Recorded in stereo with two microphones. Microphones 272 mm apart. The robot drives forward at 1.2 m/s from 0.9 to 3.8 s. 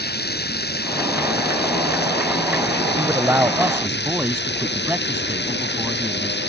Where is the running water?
35° left (ahead or behind); by 6.5 s 40° left (ahead or behind).